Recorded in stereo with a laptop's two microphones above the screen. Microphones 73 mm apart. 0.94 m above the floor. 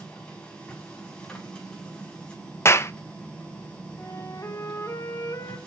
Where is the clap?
35° left (ahead or behind), 0.7 m.